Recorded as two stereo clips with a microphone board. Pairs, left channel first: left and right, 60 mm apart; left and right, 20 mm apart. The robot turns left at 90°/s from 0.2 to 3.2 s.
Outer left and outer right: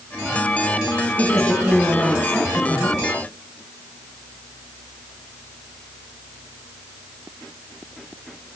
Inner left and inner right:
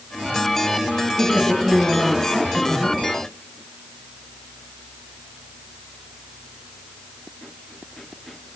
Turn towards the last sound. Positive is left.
turn(degrees=65)